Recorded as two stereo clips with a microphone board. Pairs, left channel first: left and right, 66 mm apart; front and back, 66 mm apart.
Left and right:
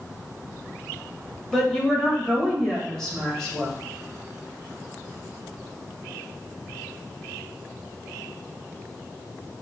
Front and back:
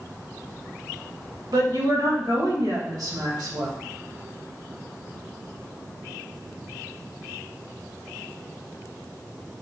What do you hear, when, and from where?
1.5 s a woman speaking: 170° left, 1.8 m